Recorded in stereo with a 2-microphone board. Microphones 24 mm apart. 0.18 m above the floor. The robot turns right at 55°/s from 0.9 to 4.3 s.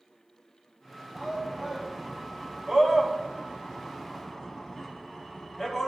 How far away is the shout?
About 1.1 m.